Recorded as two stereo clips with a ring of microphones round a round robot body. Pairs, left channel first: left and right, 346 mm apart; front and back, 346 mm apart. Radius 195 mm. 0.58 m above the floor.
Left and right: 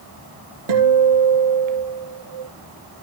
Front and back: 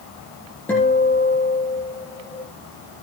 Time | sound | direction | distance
0.7 | a guitar | 85° right | 7 m